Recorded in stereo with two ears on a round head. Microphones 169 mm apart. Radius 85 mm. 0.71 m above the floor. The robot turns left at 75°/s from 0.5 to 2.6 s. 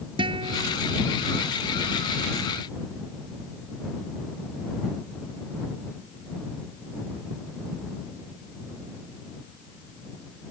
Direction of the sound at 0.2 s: 25° right (ahead or behind).